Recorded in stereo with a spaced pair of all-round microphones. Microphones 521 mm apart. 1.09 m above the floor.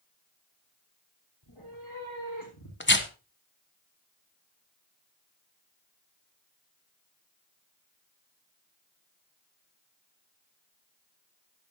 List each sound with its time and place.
1.4 s a cat meowing: 50° left (ahead or behind), 5.5 m; by 2.7 s 40° left (ahead or behind), 6 m
2.8 s tearing paper: 20° left (ahead or behind), 1.3 m